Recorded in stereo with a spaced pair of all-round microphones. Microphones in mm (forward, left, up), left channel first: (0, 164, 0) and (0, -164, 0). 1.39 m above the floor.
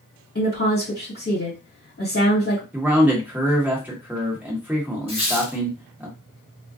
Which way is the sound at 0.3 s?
45° left (ahead or behind).